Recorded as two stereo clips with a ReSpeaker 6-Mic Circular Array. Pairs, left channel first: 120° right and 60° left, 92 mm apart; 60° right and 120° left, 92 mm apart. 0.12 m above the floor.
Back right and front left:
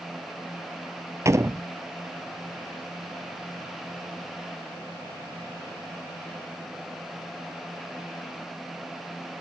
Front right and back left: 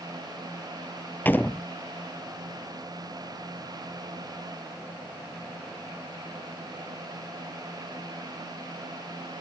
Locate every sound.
1.2 s a door slam: 10° left